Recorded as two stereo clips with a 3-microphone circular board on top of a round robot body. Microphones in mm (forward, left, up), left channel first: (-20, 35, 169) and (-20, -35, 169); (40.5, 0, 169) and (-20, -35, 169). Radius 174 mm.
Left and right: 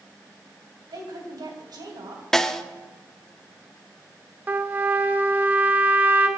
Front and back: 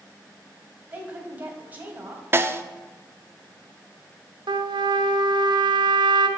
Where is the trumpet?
160° right, 0.9 m.